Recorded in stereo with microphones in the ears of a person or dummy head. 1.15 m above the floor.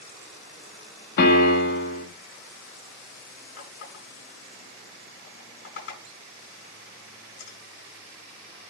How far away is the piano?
About 1.6 m.